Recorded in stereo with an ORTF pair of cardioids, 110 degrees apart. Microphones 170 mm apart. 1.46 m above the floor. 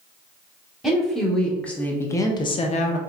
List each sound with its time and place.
0.8 s a woman speaking: straight ahead, 1.3 m; by 3.0 s 80° left, 0.5 m